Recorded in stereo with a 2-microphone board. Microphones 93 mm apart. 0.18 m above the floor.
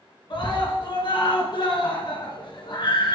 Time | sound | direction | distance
0.3 | a scream | 55° left (ahead or behind) | 2 m